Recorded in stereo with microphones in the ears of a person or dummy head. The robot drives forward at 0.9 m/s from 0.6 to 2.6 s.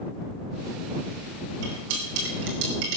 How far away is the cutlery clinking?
About 3.5 m.